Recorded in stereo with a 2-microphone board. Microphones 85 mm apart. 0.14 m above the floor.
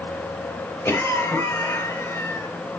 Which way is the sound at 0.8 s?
25° left (ahead or behind).